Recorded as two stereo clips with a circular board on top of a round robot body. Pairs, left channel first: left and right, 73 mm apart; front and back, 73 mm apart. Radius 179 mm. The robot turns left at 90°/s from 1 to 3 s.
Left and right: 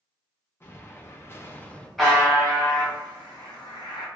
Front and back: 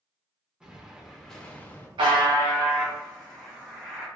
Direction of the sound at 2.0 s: 175° left.